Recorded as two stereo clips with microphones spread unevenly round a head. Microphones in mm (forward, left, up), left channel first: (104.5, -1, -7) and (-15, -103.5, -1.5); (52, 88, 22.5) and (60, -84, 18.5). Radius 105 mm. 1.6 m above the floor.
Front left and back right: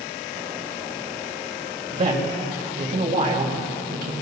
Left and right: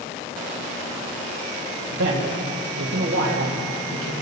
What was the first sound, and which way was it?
A man speaking, 100° right.